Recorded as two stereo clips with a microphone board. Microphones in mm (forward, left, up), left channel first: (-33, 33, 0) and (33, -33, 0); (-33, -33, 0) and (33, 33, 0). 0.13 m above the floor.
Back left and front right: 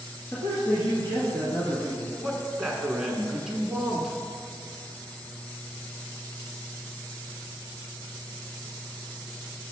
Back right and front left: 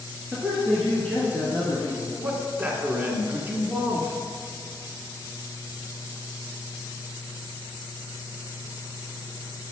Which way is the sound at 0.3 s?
125° left.